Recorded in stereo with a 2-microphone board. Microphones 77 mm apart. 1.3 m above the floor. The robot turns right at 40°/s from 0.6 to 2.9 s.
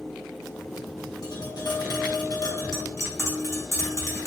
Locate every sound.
1.2 s tapping: 70° left, 0.9 m; by 4.3 s 135° left, 0.9 m